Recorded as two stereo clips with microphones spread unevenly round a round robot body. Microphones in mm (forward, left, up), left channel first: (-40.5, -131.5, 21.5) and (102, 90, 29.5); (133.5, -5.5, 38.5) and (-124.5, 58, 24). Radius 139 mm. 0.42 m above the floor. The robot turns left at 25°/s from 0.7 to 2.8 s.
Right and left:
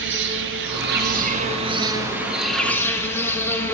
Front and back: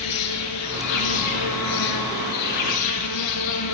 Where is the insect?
10° left, 1.2 m; by 3.8 s 40° right, 1.2 m.